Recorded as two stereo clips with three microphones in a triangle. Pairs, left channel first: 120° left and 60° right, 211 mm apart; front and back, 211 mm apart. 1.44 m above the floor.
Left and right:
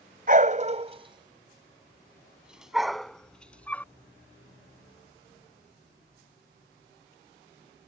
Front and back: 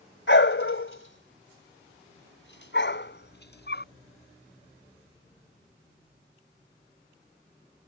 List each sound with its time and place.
0.3 s a dog barking: 15° right; by 3.9 s 40° left